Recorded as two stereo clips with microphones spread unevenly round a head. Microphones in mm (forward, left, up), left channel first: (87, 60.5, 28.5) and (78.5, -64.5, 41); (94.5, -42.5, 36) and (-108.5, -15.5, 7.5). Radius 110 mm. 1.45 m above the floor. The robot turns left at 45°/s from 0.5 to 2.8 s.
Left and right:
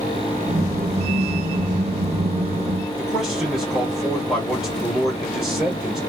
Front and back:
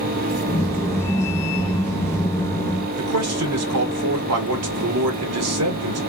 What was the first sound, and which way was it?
A man speaking, straight behind.